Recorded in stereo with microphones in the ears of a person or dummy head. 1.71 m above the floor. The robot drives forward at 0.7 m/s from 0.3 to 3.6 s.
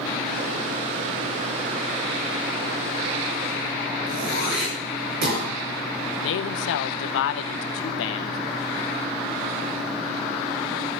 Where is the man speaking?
55° left (ahead or behind), 1.1 m.